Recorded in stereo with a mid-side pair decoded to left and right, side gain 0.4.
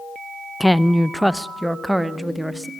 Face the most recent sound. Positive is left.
turn(degrees=-10)